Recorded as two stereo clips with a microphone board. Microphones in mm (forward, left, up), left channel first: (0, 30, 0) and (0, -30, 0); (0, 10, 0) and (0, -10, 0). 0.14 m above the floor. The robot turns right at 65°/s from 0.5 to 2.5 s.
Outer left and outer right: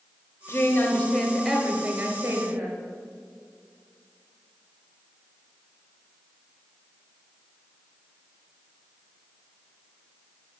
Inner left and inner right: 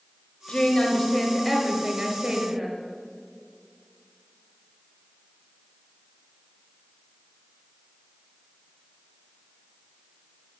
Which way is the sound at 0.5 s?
110° left.